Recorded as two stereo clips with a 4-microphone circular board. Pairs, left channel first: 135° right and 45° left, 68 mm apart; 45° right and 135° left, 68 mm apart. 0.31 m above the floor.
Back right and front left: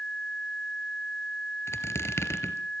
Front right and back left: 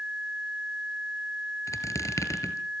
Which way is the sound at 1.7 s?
85° right.